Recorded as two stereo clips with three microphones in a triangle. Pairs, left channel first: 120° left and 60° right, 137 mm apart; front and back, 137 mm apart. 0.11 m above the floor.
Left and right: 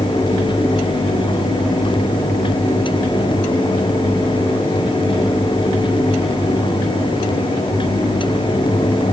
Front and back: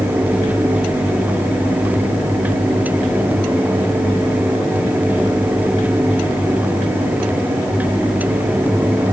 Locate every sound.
Only background noise.